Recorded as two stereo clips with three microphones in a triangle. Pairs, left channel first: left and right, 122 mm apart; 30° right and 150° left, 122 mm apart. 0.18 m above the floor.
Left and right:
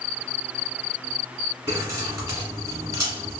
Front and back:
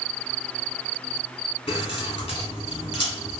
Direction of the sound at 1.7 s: 35° right.